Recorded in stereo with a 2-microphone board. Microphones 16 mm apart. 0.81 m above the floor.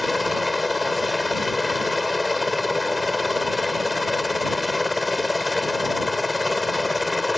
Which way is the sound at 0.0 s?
5° right (ahead or behind).